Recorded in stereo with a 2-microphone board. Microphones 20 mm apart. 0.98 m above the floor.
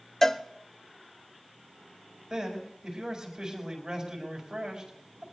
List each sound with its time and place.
0.2 s a cowbell: 20° left (ahead or behind), 0.6 m
2.3 s a man speaking: 50° right (ahead or behind), 5 m